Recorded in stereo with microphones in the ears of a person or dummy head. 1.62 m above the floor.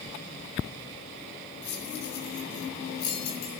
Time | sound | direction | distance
1.6 | keys jangling | 55° left (ahead or behind) | 5 m